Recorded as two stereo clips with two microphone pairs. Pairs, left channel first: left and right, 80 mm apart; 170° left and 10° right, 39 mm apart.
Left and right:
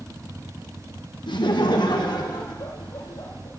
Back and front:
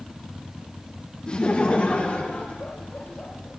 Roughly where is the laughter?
Left.